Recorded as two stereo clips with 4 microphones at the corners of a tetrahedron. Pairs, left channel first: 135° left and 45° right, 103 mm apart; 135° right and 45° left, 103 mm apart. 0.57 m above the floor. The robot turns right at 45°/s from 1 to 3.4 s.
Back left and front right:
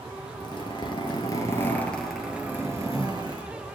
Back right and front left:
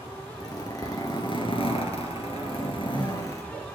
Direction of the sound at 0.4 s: 175° left.